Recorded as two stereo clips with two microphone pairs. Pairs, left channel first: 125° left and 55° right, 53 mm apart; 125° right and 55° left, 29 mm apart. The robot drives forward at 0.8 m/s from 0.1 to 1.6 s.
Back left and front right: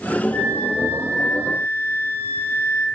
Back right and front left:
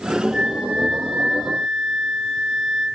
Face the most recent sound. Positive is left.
turn(degrees=135)